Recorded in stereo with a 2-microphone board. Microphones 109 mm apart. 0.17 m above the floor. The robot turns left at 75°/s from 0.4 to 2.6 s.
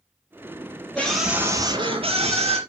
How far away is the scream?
About 3 m.